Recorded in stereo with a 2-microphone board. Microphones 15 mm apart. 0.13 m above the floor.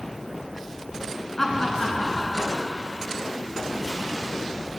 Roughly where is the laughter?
Centre.